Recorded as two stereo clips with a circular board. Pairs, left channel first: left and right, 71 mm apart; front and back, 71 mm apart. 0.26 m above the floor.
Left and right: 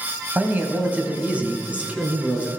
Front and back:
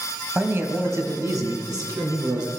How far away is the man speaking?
About 1.3 m.